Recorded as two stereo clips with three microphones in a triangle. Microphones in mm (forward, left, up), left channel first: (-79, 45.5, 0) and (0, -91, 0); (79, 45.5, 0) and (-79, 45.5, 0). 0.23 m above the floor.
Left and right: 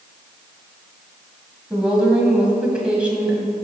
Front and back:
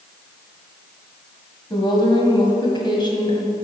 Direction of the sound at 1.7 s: 15° left.